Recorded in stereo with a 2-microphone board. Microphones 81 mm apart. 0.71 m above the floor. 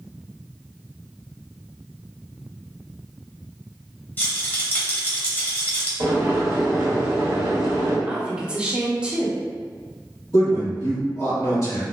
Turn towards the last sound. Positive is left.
turn(degrees=45)  # may be behind; listen again after turning